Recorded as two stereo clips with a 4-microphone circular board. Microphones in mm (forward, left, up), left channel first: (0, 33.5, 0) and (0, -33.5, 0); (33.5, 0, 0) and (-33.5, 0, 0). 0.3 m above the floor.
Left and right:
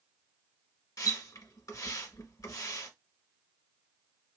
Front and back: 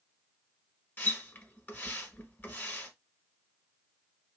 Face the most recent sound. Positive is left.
turn(degrees=60)